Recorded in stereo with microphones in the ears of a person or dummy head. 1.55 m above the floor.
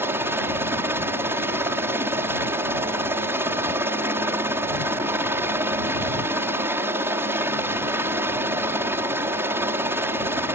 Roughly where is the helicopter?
Centre.